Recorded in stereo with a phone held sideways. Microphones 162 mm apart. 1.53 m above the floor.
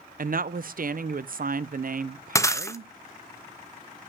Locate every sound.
0.2 s a woman speaking: 60° right (ahead or behind), 0.5 m
2.4 s breaking glass: 20° left (ahead or behind), 0.6 m